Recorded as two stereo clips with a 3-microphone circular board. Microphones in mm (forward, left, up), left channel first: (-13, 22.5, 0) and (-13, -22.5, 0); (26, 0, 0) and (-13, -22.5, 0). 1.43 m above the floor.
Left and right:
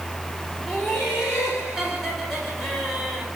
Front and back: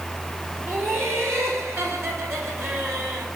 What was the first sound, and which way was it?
Laughter, straight behind.